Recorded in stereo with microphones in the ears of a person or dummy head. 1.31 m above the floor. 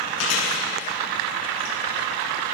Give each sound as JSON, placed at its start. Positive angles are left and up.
{"t": 0.2, "sound": "chewing", "side_deg": 85, "distance_m": 7.5}